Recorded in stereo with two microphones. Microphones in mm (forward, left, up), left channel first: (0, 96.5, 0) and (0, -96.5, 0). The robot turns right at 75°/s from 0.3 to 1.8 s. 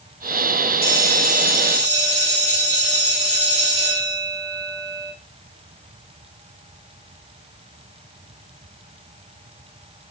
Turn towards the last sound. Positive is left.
turn(degrees=-140)